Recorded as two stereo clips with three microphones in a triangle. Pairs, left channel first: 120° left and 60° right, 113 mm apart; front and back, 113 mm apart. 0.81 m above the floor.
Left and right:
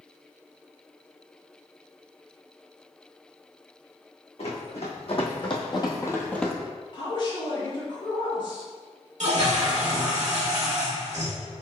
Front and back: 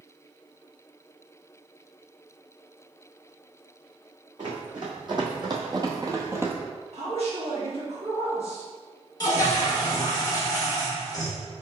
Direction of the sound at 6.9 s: 160° left.